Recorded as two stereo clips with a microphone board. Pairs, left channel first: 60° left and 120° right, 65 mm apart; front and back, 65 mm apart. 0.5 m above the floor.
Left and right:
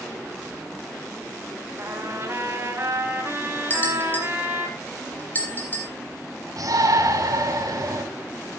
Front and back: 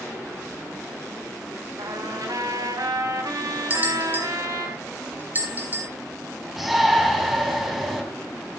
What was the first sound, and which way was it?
A trumpet, 170° right.